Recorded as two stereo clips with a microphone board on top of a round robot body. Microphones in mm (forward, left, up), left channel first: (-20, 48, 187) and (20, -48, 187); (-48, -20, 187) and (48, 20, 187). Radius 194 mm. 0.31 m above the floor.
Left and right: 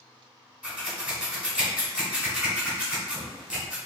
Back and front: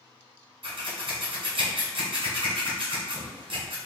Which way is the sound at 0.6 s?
15° left.